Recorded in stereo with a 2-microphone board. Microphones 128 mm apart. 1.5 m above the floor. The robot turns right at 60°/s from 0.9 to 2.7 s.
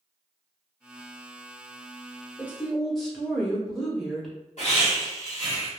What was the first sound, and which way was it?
A woman speaking, 20° right (ahead or behind).